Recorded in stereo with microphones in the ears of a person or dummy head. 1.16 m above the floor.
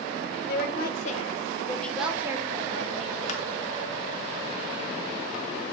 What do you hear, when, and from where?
0.5 s a woman speaking: 60° left (ahead or behind), 0.9 m; by 3.2 s 40° right (ahead or behind), 1.0 m
3.3 s crushing: 40° left (ahead or behind), 0.8 m